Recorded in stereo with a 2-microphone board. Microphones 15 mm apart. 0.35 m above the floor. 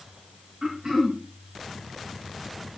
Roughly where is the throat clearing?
Right.